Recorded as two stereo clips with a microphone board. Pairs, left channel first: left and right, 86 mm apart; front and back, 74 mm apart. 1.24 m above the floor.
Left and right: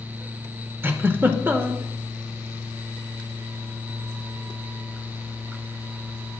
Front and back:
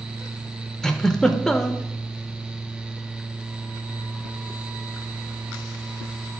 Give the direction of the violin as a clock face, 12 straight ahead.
I don't hear a violin.